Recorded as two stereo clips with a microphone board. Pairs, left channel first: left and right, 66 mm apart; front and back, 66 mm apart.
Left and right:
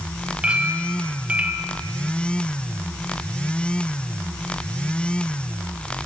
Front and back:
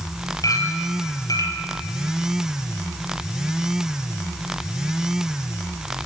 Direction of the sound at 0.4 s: 20° right.